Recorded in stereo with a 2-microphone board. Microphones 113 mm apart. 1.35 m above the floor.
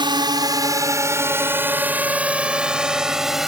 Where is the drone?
45° right (ahead or behind); by 3.5 s 5° right (ahead or behind).